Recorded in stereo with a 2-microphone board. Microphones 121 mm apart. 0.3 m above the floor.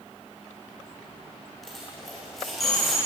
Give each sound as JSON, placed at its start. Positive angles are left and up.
{"t": 1.6, "sound": "a dropped coin", "side_deg": 0, "distance_m": 7.5}